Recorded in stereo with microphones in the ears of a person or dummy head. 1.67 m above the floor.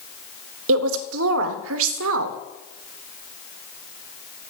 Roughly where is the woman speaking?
Right.